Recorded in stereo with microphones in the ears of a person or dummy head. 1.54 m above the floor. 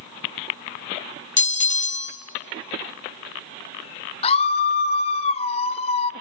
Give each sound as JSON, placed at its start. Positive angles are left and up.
{"t": 1.4, "sound": "a bell", "side_deg": 40, "distance_m": 0.6}
{"t": 4.2, "sound": "a scream", "side_deg": 35, "distance_m": 0.8}